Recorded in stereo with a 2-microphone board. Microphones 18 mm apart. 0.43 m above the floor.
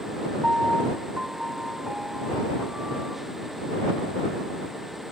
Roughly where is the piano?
Right.